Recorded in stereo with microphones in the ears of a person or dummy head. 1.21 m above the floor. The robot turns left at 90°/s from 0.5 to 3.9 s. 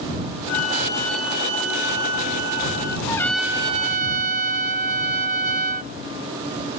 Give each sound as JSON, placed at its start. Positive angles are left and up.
{"t": 0.5, "sound": "a flute", "azimuth_deg": 60}
{"t": 3.1, "sound": "a trumpet", "azimuth_deg": 30}